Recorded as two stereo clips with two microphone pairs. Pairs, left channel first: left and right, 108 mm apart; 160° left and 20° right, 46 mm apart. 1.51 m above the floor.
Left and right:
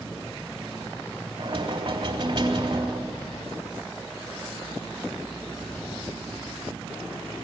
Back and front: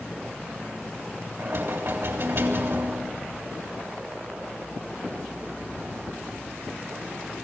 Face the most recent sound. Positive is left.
turn(degrees=-45)